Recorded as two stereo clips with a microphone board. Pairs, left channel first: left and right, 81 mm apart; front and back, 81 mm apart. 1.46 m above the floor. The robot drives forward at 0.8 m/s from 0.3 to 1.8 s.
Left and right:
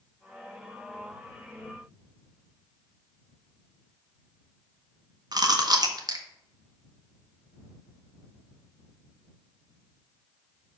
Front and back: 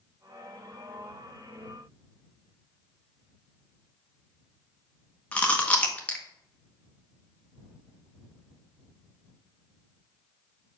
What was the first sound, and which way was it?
Chewing, 70° right.